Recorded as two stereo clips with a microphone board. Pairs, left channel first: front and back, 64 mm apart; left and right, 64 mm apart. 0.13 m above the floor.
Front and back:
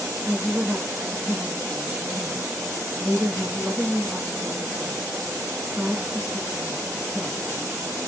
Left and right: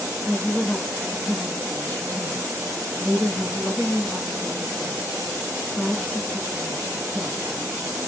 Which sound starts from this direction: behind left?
A woman speaking, at 0.2 s.